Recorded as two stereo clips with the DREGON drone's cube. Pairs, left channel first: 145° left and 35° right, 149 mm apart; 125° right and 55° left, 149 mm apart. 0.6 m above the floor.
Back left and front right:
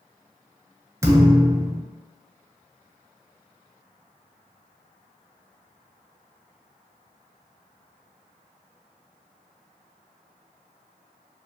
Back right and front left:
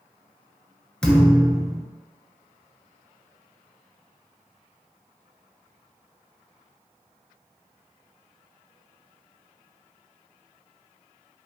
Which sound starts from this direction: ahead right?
A thud, at 1.0 s.